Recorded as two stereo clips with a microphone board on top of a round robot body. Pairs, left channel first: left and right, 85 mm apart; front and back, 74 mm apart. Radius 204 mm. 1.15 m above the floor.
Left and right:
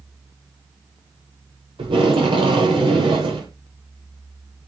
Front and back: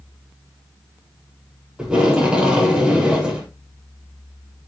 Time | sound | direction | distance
1.8 | tape being pulled | 100° right | 6.5 m